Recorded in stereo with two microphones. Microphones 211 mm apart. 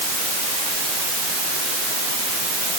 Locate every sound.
Only background noise.